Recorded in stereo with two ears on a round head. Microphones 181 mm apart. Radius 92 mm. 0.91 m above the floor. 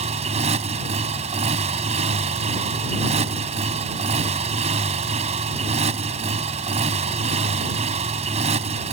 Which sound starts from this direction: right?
A motorcycle, at 0.0 s.